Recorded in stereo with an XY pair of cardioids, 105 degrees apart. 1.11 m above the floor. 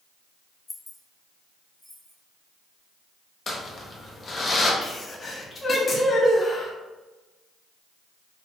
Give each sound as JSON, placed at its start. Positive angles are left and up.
{"t": 0.7, "sound": "keys jangling", "azimuth_deg": 30, "distance_m": 0.5}
{"t": 3.5, "sound": "crumpling", "azimuth_deg": 35, "distance_m": 0.7}
{"t": 4.8, "sound": "a sneeze", "azimuth_deg": 30, "distance_m": 1.1}